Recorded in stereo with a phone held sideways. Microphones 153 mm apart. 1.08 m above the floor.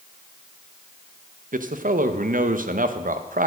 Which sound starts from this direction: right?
A man speaking, at 1.5 s.